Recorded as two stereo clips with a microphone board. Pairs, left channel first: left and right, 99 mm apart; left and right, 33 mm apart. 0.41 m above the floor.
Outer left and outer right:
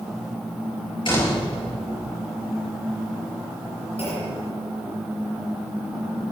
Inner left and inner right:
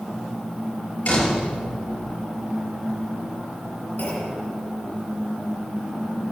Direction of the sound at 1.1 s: 55° left (ahead or behind).